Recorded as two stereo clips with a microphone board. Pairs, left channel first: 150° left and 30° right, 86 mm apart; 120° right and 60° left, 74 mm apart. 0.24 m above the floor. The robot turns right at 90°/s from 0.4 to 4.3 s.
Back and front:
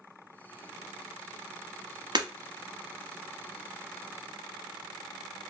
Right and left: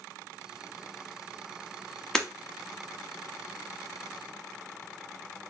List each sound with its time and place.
2.1 s breaking glass: 40° right, 0.8 m; by 2.3 s 30° right, 0.8 m